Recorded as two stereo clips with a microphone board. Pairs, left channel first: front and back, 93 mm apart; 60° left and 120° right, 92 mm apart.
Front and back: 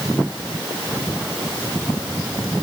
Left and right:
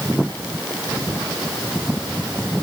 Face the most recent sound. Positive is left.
No sound to turn to.